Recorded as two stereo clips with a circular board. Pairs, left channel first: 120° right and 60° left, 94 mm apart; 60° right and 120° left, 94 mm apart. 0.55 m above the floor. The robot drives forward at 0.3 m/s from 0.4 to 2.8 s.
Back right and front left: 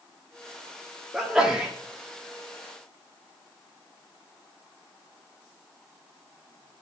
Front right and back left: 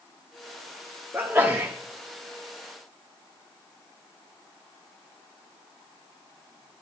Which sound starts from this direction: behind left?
A sneeze, at 1.1 s.